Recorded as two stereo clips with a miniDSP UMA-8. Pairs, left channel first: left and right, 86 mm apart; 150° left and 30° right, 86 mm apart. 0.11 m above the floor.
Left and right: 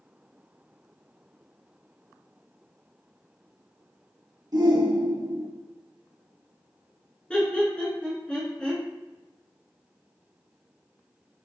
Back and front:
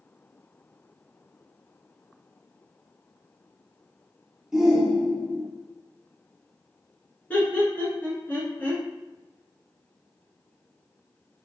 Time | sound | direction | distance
4.5 | a shout | 115° right | 1.9 m
7.3 | laughter | 145° left | 1.5 m